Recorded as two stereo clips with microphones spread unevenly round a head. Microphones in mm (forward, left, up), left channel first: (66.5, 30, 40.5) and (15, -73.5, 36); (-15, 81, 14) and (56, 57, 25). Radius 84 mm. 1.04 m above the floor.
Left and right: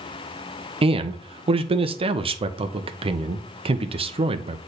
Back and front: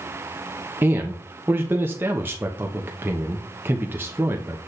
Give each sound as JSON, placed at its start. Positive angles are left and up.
{"t": 0.8, "sound": "a man speaking", "azimuth_deg": -90, "distance_m": 0.9}